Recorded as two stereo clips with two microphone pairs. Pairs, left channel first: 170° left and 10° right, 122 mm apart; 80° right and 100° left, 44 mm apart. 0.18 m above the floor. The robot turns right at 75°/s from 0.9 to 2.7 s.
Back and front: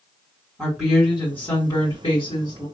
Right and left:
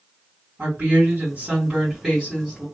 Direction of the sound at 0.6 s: 75° left.